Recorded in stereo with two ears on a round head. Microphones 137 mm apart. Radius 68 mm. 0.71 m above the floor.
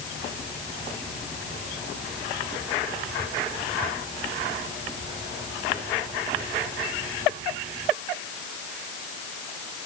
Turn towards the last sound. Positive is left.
No sound to turn to.